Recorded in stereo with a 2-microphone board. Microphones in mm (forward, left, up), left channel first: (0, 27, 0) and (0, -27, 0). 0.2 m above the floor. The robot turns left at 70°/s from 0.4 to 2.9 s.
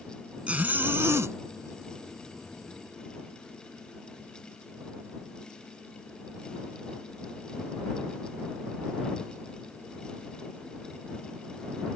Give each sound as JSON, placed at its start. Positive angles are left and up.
{"t": 0.5, "sound": "a zipper", "azimuth_deg": -25}